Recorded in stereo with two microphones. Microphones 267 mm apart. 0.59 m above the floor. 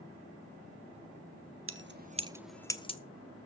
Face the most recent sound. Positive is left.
turn(degrees=25)  # may be behind; listen again after turning